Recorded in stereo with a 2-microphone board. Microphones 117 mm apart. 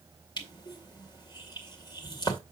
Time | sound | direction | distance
0.4 | crushing | 40° left (ahead or behind) | 2 m